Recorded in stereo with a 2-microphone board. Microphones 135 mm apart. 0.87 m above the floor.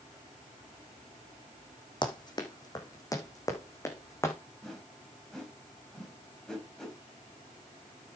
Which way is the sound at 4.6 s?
5° left (ahead or behind).